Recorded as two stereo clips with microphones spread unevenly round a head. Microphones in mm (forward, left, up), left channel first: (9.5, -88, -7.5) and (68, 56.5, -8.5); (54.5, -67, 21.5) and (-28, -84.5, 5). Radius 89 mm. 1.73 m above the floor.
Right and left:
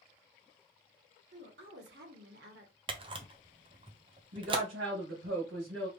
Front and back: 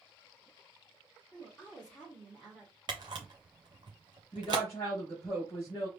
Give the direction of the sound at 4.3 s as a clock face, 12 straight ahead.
9 o'clock.